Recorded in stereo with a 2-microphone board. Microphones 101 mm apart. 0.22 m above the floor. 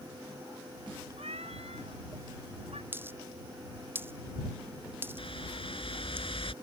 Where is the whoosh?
65° left (ahead or behind).